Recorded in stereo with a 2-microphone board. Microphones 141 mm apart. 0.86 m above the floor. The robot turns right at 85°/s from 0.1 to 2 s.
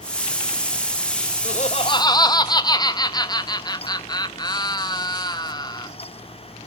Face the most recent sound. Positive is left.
turn(degrees=145)